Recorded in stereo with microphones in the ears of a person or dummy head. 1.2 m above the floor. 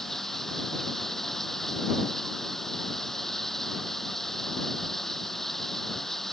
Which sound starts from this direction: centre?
Running water, at 0.0 s.